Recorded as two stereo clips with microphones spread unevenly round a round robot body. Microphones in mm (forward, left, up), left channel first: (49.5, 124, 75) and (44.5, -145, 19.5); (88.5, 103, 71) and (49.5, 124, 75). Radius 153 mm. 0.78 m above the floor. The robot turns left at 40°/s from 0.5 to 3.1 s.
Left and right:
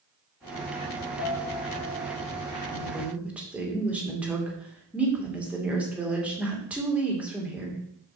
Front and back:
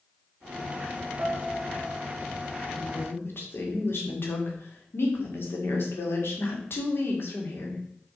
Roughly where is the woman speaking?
Ahead.